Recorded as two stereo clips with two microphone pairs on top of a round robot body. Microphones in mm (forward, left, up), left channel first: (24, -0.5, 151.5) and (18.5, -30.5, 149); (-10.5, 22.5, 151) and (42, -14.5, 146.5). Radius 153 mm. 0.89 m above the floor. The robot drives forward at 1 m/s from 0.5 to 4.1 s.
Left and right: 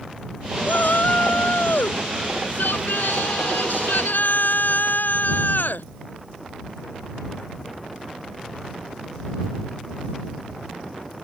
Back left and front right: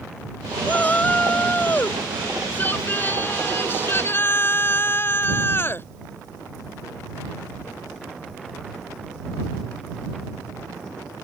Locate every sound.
0.7 s a shout: 75° left; by 5.9 s 90° left